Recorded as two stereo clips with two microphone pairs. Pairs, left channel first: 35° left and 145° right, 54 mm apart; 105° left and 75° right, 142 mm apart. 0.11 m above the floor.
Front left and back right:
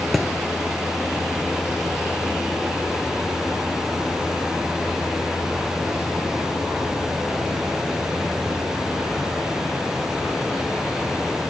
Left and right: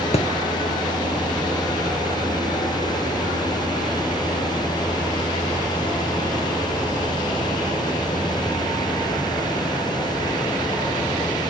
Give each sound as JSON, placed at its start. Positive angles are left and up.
{"t": 0.1, "sound": "a thud", "azimuth_deg": 125, "distance_m": 0.7}